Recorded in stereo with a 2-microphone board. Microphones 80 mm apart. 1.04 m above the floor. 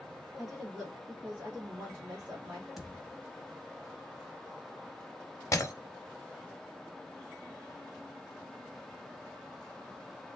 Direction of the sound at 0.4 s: 5° right (ahead or behind).